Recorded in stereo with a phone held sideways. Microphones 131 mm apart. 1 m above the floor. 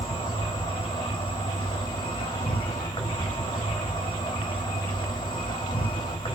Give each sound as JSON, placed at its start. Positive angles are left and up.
{"t": 0.0, "sound": "an insect", "side_deg": 35, "distance_m": 1.9}